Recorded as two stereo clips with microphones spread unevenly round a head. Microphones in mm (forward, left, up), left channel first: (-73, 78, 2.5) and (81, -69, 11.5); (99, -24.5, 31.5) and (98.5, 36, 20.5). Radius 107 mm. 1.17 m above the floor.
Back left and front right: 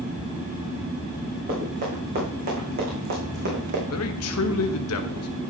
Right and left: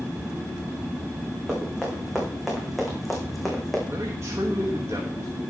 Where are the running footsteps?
5° left, 5.5 m; by 3.8 s 10° right, 4 m.